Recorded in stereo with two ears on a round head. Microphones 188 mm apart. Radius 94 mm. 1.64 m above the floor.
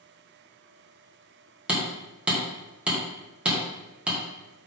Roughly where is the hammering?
Centre.